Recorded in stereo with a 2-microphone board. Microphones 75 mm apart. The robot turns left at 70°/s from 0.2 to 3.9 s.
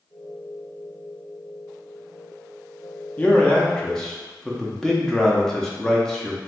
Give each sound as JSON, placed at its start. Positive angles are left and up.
{"t": 3.2, "sound": "a man speaking", "side_deg": 20, "distance_m": 0.6}